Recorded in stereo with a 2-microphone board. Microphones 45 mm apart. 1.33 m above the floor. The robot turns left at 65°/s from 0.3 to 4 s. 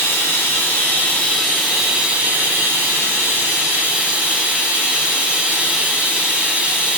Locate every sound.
0.0 s running water: 90° left, 1.0 m; by 7.0 s 150° right, 1.0 m